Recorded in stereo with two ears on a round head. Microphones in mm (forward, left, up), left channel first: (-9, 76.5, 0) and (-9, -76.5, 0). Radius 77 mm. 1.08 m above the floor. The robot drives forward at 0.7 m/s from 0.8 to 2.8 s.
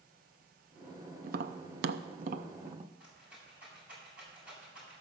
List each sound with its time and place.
1.2 s tapping: 50° right (ahead or behind), 0.7 m; by 2.9 s 35° right (ahead or behind), 0.9 m
3.0 s a rattle: 10° right (ahead or behind), 7 m